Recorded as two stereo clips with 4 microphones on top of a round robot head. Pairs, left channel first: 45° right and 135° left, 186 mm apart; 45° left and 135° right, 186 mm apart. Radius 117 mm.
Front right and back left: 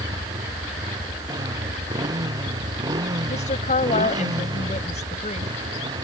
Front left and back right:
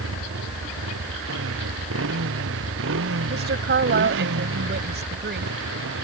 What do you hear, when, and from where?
0.0 s a motorcycle: 150° right; by 6.0 s 155° right
3.3 s a woman speaking: 100° right